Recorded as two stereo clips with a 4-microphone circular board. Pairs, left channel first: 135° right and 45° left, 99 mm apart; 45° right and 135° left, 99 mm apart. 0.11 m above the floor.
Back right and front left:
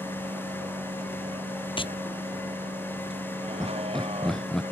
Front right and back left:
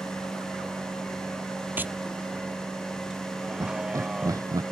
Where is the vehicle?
55° left.